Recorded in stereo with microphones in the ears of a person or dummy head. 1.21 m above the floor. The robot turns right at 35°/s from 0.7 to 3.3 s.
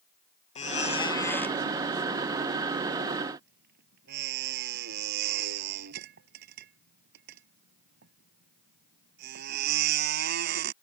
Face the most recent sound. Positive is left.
turn(degrees=-60)  # may be behind; listen again after turning